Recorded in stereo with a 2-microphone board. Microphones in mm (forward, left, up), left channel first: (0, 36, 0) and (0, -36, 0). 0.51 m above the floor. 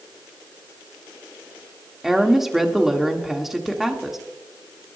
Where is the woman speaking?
5° right (ahead or behind), 1.4 m.